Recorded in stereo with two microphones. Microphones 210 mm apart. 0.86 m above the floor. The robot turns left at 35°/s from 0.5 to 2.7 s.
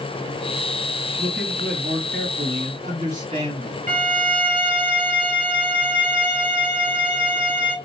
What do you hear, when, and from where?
1.2 s a man speaking: 85° right, 1.7 m; by 3.9 s 140° right, 1.7 m
3.9 s a violin: 40° right (ahead or behind), 1.0 m